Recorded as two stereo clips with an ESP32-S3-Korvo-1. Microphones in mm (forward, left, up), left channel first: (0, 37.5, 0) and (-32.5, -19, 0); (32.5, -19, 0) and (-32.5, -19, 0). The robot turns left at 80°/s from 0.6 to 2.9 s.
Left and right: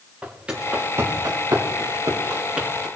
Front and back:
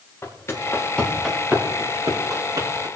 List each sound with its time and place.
0.2 s footsteps: 50° right, 4 m; by 2.9 s 145° left, 5 m